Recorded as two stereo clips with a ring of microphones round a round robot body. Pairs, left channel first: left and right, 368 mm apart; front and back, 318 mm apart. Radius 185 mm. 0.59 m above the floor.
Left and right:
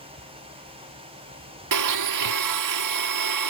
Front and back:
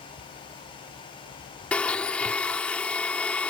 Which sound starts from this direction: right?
A blender, at 1.7 s.